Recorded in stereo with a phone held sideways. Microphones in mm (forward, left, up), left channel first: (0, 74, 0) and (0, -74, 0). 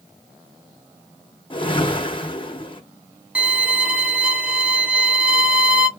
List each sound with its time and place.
1.5 s a whoosh: 35° left (ahead or behind), 0.6 m
3.4 s a violin: 5° right (ahead or behind), 0.8 m